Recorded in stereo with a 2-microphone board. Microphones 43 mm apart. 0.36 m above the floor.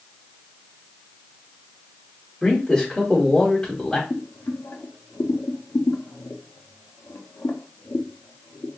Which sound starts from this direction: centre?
A man speaking, at 2.4 s.